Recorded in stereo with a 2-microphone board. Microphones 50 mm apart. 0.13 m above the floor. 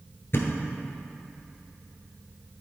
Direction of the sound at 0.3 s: 50° left (ahead or behind).